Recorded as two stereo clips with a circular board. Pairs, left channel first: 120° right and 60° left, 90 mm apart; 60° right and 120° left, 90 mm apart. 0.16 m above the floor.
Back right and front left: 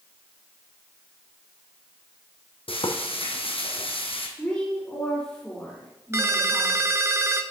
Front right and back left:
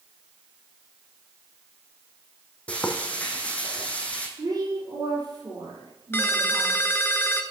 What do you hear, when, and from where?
2.7 s frying: 135° right, 1.2 m
4.4 s a woman speaking: 165° left, 4.5 m
6.1 s a ringtone: 5° left, 0.7 m